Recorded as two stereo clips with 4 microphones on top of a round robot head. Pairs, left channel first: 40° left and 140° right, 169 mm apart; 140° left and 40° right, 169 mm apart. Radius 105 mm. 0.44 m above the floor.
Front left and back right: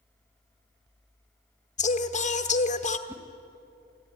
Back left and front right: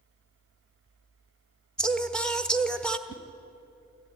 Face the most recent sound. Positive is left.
turn(degrees=140)